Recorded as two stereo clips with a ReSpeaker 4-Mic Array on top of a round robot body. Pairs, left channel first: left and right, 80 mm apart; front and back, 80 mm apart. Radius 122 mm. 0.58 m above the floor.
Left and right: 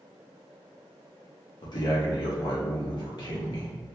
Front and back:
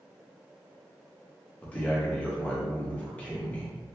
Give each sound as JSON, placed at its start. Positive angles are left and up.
{"t": 1.6, "sound": "a man speaking", "azimuth_deg": 70, "distance_m": 1.4}